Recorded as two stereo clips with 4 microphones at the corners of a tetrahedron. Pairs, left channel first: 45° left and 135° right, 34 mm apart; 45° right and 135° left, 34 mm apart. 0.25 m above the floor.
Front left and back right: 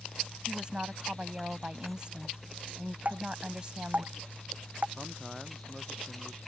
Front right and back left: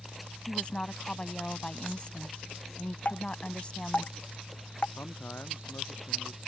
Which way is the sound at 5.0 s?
45° right.